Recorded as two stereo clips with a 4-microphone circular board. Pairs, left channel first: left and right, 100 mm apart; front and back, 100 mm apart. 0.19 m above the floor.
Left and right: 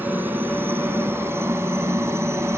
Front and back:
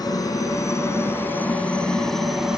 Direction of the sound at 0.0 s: 25° right.